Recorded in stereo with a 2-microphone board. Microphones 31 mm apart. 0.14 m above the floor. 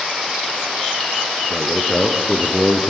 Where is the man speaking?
20° left (ahead or behind), 2.0 m; by 2.9 s 5° right (ahead or behind), 2.5 m.